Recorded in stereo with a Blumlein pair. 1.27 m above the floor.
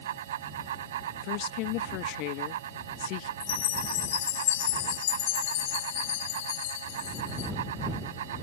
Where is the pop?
I don't hear a pop.